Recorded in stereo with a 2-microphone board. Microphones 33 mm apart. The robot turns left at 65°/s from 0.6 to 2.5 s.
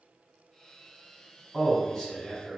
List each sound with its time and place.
1.5 s a man speaking: 20° left (ahead or behind), 1.1 m; by 2.6 s 10° right (ahead or behind), 1.1 m